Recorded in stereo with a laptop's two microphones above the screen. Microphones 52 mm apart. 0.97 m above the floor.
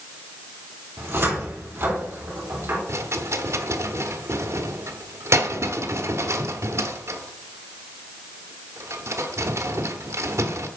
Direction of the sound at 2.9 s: 60° right (ahead or behind).